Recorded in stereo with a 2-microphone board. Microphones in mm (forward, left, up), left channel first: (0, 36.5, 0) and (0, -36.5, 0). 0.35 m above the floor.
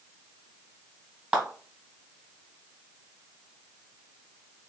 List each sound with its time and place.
1.3 s a clap: 15° right (ahead or behind), 2.5 m